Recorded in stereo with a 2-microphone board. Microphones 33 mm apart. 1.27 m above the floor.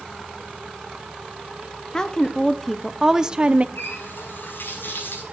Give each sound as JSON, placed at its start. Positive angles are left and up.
{"t": 1.9, "sound": "a woman speaking", "side_deg": 20, "distance_m": 1.1}
{"t": 3.8, "sound": "a running tap", "side_deg": 85, "distance_m": 5.5}